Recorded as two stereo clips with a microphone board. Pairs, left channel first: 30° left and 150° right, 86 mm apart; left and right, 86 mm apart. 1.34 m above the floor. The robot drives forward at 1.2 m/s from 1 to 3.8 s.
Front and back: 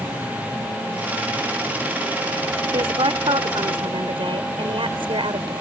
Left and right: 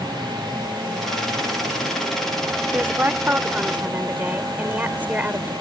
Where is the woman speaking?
155° right; by 5.5 s 160° right.